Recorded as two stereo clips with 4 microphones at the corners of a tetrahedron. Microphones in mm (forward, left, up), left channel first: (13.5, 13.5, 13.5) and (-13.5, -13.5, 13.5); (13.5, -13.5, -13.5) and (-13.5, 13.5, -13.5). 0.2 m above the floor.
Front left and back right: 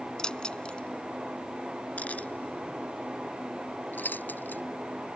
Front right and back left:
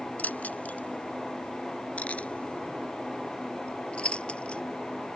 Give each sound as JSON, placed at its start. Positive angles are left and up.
{"t": 0.2, "sound": "keys jangling", "azimuth_deg": -20}